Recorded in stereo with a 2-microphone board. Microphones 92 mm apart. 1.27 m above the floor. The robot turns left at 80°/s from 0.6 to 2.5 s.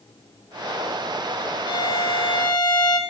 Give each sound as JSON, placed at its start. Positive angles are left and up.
{"t": 1.7, "sound": "a violin", "azimuth_deg": 125, "distance_m": 1.6}